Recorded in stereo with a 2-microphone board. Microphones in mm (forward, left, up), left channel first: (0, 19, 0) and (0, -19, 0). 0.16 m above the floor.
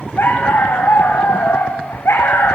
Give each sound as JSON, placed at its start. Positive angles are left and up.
{"t": 0.2, "sound": "a dog barking", "side_deg": 75, "distance_m": 5.0}